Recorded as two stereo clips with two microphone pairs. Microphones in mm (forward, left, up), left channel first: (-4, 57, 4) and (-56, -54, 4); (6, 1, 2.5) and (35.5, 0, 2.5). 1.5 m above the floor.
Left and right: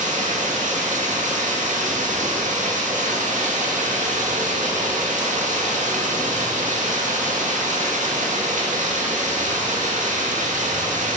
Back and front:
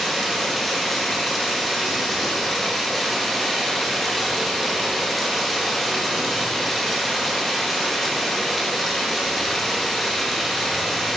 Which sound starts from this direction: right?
Running water, at 0.0 s.